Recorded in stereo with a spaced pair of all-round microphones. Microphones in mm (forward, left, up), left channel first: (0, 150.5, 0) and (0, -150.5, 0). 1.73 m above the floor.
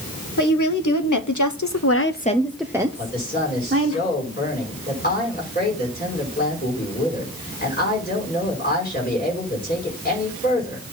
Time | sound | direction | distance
0.4 | a woman speaking | 80° left | 1.7 m
3.0 | a man speaking | 30° left (ahead or behind) | 4.5 m